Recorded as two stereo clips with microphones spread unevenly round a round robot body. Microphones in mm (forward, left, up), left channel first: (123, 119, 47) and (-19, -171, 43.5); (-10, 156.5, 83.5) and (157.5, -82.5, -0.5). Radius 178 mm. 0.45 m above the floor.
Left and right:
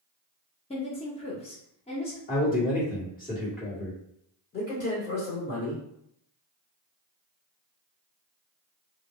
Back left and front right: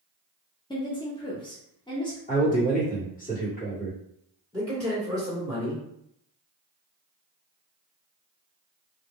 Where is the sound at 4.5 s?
10° left, 2.0 m.